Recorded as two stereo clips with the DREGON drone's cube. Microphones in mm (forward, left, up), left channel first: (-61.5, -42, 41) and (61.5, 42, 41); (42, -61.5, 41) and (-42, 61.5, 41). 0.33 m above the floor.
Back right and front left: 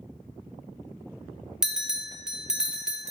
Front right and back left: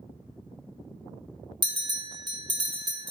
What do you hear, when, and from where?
1.6 s a bell: 115° left, 0.6 m